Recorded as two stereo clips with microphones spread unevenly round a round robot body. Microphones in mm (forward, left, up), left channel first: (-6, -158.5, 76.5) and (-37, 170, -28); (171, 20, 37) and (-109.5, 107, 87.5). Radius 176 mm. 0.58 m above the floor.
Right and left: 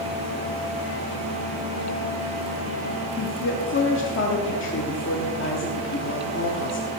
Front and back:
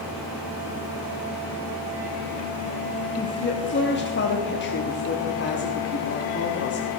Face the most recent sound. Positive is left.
turn(degrees=-25)